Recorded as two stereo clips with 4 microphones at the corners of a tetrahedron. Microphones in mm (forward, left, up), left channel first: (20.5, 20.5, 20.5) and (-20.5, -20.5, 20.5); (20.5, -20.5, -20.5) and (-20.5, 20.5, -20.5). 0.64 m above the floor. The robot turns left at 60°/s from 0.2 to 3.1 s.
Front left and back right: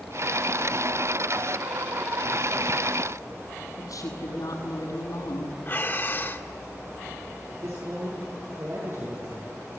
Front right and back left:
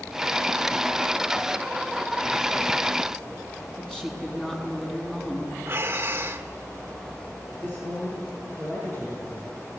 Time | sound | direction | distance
3.8 | a woman speaking | 35° left | 7 m
5.7 | breathing | 90° left | 1.5 m
7.5 | a man speaking | 100° right | 10 m